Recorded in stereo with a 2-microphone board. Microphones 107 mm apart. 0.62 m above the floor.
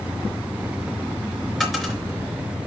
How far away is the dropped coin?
About 4 m.